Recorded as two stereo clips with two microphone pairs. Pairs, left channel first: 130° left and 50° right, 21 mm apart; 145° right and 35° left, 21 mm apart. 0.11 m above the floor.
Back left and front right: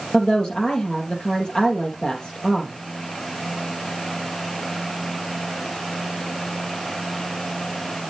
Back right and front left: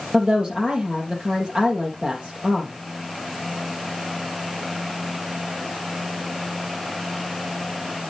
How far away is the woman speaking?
About 4 m.